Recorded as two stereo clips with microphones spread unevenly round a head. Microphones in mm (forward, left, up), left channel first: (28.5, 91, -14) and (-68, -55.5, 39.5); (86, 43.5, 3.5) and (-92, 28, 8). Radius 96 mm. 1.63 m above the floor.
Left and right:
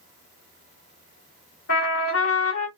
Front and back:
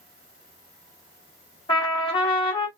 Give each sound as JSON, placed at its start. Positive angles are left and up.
{"t": 1.7, "sound": "a trumpet", "azimuth_deg": 55, "distance_m": 1.6}